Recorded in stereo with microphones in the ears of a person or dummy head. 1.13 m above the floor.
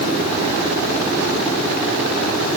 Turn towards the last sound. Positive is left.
No sound to turn to.